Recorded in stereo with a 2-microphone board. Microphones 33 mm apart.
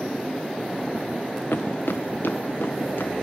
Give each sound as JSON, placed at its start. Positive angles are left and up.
{"t": 1.5, "sound": "footsteps", "side_deg": 70, "distance_m": 0.6}